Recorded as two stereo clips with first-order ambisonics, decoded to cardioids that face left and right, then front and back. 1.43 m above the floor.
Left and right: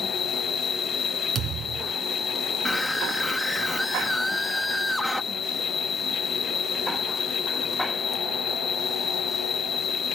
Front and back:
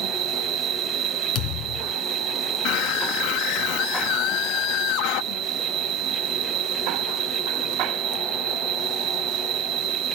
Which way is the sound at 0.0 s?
150° left.